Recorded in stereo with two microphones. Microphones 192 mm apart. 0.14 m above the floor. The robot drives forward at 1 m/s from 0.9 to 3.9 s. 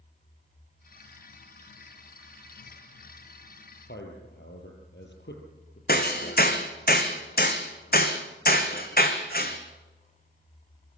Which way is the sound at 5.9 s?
50° left (ahead or behind).